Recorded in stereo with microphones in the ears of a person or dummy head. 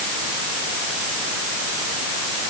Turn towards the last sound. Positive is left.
No sound to turn to.